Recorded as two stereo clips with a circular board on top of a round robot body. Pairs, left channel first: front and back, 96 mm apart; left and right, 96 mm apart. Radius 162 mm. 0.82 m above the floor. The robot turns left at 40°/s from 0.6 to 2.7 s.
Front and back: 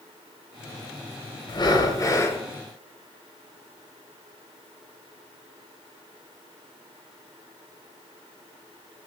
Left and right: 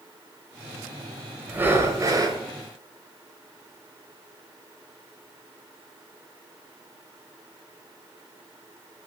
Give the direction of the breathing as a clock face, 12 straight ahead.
1 o'clock.